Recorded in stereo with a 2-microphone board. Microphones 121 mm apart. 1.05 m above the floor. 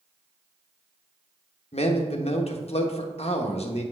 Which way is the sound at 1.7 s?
55° left (ahead or behind).